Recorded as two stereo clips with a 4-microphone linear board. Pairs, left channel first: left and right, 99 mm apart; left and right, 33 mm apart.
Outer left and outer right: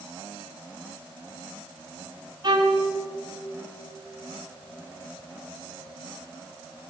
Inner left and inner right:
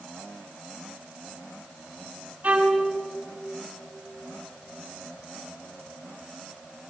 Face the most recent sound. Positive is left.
turn(degrees=-50)  # may be behind; listen again after turning